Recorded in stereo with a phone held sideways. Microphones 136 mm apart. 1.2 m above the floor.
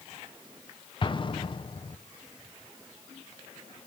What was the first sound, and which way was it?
An explosion, 35° left (ahead or behind).